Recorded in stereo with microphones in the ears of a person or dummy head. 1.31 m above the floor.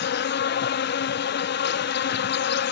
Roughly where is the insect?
Left.